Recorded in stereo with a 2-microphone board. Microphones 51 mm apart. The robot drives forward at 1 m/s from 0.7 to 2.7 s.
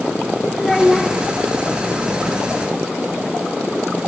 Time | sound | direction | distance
0.6 | a child speaking | 5° left (ahead or behind) | 0.8 m